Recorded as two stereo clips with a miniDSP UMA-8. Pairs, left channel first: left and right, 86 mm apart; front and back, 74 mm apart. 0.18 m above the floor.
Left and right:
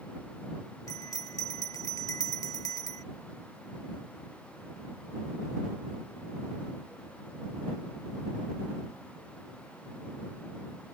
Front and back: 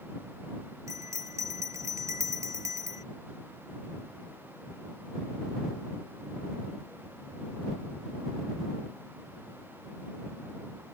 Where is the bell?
135° left.